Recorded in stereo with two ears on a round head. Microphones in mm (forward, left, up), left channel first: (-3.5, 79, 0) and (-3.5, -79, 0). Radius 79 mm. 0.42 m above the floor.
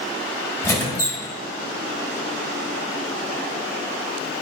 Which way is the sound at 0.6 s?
15° left (ahead or behind).